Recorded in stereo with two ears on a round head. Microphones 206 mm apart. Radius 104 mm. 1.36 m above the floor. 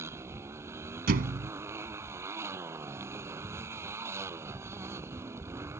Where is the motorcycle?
10° right (ahead or behind).